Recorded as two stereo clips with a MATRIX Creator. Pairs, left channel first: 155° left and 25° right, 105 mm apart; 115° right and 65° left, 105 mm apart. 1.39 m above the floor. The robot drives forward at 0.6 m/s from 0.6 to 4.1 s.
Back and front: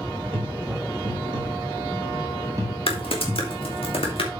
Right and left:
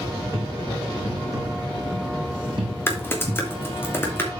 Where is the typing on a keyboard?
Straight behind, 1.6 m.